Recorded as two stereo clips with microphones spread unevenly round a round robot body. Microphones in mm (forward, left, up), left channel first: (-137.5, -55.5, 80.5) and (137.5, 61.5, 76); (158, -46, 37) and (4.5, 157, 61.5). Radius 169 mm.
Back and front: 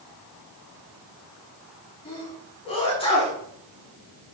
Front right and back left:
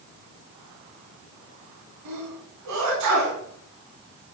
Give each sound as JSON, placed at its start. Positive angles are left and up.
{"t": 2.0, "sound": "a sneeze", "azimuth_deg": 130, "distance_m": 4.0}